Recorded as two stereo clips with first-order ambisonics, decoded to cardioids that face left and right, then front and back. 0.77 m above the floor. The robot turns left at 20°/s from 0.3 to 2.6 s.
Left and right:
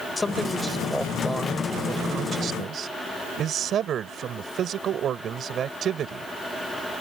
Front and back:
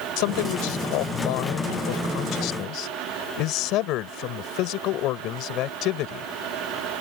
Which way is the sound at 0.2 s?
10° left.